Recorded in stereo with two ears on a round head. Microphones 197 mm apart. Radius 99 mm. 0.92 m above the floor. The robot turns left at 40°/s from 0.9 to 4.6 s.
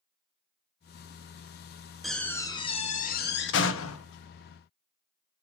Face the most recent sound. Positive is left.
turn(degrees=80)